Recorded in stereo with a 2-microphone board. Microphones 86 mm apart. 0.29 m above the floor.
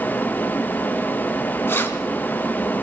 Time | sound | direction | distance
1.7 | keys jangling | 30° left (ahead or behind) | 1.9 m